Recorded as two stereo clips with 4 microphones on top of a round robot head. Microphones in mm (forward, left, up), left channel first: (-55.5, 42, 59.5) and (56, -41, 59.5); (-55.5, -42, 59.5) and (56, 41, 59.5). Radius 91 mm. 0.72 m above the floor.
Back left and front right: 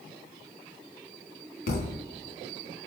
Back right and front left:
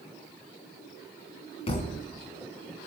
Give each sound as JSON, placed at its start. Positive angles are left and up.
{"t": 1.7, "sound": "a thud", "azimuth_deg": 165, "distance_m": 3.0}